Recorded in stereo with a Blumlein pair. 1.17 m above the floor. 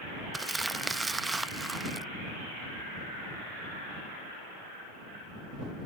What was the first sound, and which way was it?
Crumpling, 10° right.